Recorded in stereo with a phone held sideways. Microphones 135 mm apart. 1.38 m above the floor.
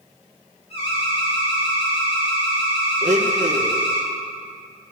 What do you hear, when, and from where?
0.7 s an alarm: 50° left (ahead or behind), 4.5 m
3.0 s a blender: 65° right (ahead or behind), 0.8 m